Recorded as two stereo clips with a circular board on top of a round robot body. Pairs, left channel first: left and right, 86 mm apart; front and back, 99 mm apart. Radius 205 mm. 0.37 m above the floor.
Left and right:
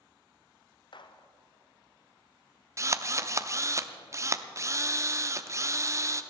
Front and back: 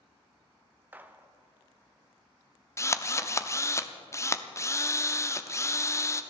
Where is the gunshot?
110° left, 1.0 m.